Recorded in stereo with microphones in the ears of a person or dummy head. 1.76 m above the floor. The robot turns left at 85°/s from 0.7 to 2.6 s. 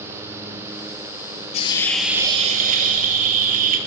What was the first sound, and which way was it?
A hiss, 40° left.